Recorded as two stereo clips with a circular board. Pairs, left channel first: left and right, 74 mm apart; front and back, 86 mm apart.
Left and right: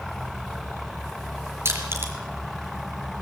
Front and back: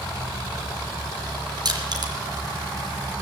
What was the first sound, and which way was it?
Crushing, 145° right.